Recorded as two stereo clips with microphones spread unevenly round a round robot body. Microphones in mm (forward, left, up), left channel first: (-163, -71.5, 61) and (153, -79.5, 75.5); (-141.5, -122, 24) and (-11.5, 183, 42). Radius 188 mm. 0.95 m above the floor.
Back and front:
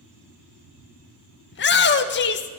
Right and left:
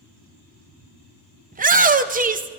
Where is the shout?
130° left, 1.0 m.